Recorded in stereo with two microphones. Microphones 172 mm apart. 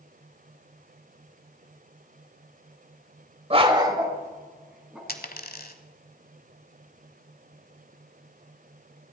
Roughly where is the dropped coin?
Left.